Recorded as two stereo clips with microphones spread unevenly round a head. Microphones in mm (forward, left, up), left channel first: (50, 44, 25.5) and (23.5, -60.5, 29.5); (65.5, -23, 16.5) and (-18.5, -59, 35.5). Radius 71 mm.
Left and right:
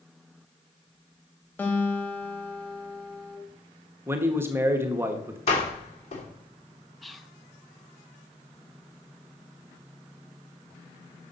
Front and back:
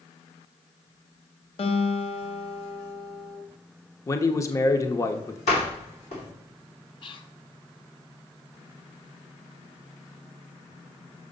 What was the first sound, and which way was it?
A guitar, 5° left.